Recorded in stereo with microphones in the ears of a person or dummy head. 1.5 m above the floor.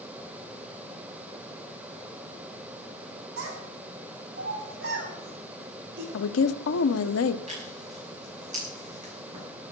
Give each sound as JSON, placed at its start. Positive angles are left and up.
{"t": 3.4, "sound": "a child speaking", "side_deg": -85, "distance_m": 7.5}
{"t": 6.1, "sound": "a woman speaking", "side_deg": 80, "distance_m": 1.0}
{"t": 7.5, "sound": "tearing paper", "side_deg": -40, "distance_m": 6.5}